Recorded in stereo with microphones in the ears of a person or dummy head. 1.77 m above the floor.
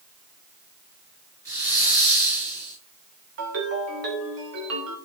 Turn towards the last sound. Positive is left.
turn(degrees=-60)  # may be behind; listen again after turning